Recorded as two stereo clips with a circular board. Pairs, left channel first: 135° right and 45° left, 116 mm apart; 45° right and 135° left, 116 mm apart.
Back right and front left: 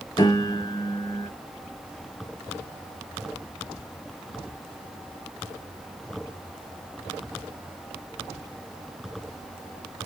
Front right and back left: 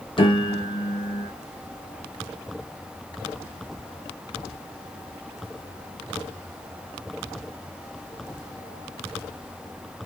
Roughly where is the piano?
Right.